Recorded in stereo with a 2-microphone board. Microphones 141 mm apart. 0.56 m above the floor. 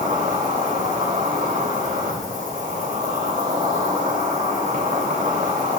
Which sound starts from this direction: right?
An insect, at 0.0 s.